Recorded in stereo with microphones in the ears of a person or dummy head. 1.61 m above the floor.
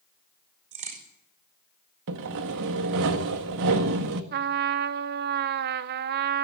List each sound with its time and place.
0.7 s a crack: 30° right (ahead or behind), 5.5 m
2.1 s sawing: 60° right (ahead or behind), 1.7 m
4.3 s a trumpet: 50° right (ahead or behind), 0.9 m